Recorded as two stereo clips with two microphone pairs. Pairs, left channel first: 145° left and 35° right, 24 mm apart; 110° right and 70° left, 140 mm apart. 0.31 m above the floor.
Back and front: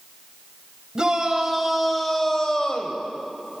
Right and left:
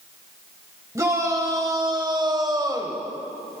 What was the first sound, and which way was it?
A shout, 10° left.